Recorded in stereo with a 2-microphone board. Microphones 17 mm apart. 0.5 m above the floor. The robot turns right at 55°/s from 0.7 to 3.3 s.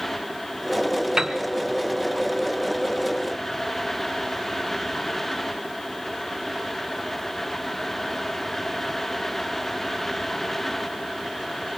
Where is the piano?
35° right (ahead or behind), 2.5 m; by 1.4 s 45° right (ahead or behind), 2.5 m.